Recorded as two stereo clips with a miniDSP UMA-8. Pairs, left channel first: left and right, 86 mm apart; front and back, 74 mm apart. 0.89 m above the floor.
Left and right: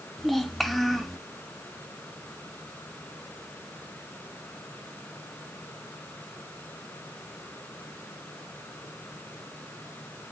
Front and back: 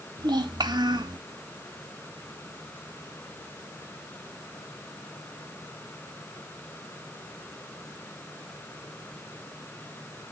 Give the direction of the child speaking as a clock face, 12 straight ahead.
6 o'clock.